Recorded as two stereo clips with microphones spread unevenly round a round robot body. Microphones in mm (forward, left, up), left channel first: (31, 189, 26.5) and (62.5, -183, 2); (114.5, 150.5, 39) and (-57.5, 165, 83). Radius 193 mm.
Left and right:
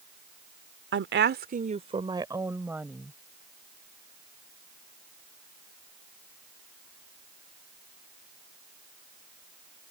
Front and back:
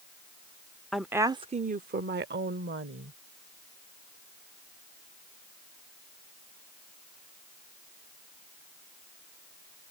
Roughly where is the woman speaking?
Right.